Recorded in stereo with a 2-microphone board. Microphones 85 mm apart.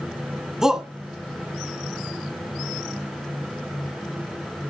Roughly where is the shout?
Centre.